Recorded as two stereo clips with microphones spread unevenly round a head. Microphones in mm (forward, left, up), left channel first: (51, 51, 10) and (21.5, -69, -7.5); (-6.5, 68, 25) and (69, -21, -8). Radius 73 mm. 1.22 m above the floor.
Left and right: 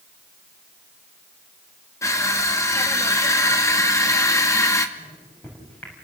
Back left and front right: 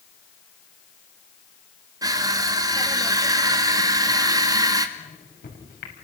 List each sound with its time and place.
2.0 s crushing: 10° left, 2.5 m
5.0 s a microwave: 155° left, 6 m